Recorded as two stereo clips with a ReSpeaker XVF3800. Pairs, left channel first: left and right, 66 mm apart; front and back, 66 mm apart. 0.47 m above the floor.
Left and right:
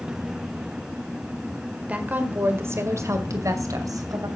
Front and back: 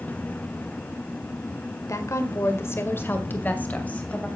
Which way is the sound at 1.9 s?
25° right.